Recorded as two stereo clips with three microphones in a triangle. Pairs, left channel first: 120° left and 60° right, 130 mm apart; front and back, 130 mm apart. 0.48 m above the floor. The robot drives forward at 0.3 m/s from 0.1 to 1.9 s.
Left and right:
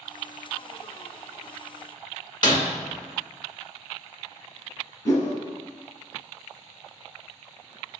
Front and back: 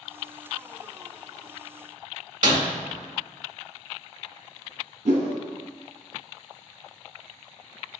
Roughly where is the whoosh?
Behind.